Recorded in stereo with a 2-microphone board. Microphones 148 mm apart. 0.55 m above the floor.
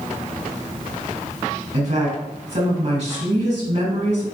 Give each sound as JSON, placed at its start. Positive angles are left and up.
{"t": 1.7, "sound": "a woman speaking", "side_deg": -55, "distance_m": 3.5}